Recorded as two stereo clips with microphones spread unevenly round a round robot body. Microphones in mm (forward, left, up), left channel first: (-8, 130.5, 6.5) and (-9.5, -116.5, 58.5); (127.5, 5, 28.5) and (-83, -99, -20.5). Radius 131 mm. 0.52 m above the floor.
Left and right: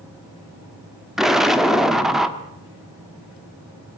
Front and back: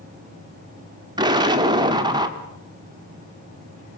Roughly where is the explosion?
Behind.